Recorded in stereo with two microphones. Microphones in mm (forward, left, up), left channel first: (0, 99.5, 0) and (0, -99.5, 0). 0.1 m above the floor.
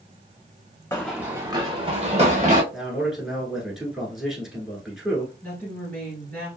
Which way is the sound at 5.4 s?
10° left (ahead or behind).